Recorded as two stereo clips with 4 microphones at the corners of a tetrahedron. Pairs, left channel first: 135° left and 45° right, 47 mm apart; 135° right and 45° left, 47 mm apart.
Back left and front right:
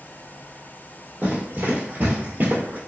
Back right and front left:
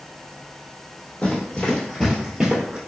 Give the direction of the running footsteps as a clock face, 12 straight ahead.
3 o'clock.